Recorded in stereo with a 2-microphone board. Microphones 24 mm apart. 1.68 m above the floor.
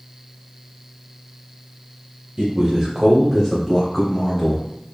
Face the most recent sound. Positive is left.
turn(degrees=30)  # may be behind; listen again after turning